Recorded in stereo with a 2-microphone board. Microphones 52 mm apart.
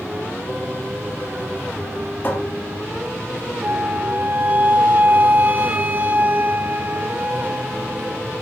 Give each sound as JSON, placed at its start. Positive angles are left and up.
{"t": 2.2, "sound": "a cupboard door", "side_deg": 40, "distance_m": 3.5}
{"t": 3.6, "sound": "a flute", "side_deg": -35, "distance_m": 2.0}